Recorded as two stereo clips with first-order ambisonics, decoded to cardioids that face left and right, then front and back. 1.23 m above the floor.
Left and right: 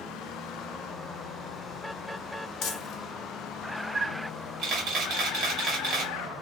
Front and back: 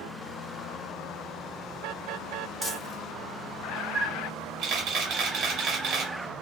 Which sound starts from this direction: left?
Crumpling, at 2.6 s.